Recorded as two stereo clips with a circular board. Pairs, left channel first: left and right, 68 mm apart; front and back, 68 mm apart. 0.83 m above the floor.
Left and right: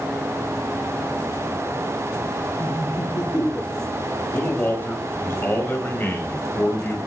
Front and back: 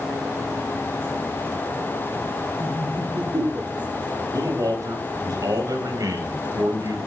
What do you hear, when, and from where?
2.6 s laughter: 130° left, 8 m; by 4.2 s 135° left, 6.5 m
4.3 s a man speaking: 150° left, 4.5 m